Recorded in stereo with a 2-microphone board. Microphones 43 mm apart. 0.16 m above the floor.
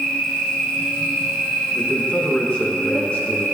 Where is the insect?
20° left (ahead or behind), 1.0 m.